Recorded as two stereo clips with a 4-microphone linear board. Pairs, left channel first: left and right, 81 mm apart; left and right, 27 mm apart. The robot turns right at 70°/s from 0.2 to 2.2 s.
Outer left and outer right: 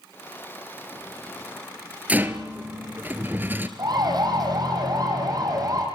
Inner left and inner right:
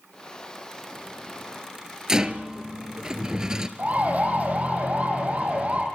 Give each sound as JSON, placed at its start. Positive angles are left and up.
{"t": 2.1, "sound": "a rattle", "side_deg": -20, "distance_m": 1.6}
{"t": 3.8, "sound": "a siren", "side_deg": -60, "distance_m": 5.5}